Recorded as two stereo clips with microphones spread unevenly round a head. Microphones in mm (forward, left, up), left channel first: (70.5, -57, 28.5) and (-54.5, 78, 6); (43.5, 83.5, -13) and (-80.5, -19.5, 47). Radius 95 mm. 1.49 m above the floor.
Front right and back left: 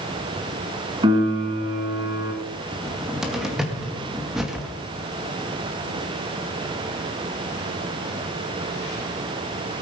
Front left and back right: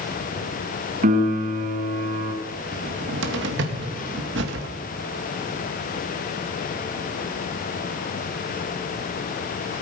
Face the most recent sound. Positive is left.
turn(degrees=-140)